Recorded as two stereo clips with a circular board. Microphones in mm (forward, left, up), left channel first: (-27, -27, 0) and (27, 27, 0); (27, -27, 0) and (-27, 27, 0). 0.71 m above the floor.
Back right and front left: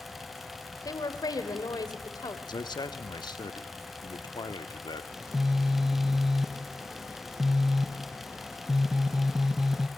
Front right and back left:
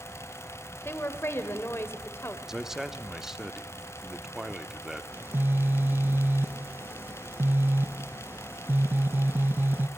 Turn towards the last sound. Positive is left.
turn(degrees=125)